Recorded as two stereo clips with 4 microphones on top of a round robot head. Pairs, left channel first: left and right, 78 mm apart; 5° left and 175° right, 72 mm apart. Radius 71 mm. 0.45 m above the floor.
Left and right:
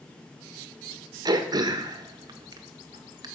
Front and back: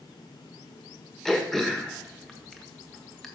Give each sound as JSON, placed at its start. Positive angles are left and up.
{"t": 1.2, "sound": "throat clearing", "azimuth_deg": -80, "distance_m": 1.4}